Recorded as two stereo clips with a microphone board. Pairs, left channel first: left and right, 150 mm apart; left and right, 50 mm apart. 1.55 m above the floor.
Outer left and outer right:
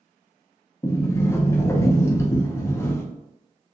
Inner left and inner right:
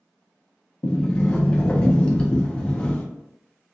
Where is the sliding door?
20° left (ahead or behind), 0.6 m.